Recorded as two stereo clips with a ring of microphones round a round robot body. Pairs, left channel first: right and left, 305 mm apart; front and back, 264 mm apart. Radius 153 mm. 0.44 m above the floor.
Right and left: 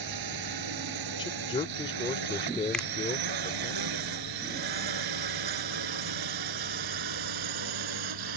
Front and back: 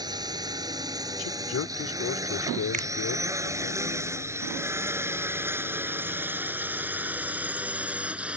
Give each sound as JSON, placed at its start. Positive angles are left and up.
{"t": 0.0, "sound": "a drone", "azimuth_deg": 105}
{"t": 1.2, "sound": "a man speaking", "azimuth_deg": -20}
{"t": 2.7, "sound": "a finger snap", "azimuth_deg": -175}